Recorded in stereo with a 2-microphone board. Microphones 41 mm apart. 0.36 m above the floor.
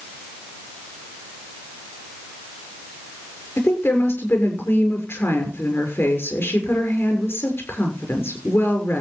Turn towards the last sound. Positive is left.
turn(degrees=70)  # may be behind; listen again after turning